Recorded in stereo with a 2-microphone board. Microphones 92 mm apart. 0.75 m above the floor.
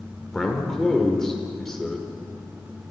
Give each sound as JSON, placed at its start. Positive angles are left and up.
{"t": 0.3, "sound": "a man speaking", "side_deg": 5, "distance_m": 1.9}